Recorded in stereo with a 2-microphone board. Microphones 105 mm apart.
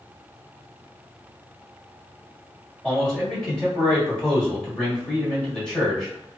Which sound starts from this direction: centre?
A man speaking, at 2.8 s.